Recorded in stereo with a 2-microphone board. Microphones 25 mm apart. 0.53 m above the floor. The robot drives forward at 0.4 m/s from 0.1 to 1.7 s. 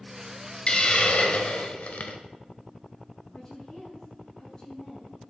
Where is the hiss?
45° left (ahead or behind), 1.1 m; by 2.2 s 65° left (ahead or behind), 0.8 m.